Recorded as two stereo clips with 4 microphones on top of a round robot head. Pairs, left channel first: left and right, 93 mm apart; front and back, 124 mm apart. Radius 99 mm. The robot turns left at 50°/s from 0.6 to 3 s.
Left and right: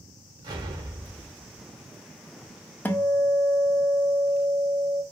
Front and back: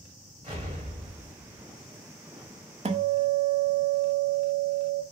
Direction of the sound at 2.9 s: 160° left.